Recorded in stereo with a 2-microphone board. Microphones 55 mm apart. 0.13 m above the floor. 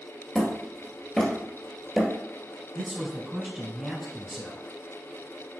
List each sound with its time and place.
0.3 s hammering: 10° left (ahead or behind), 1.2 m
2.8 s a man speaking: 5° right (ahead or behind), 1.1 m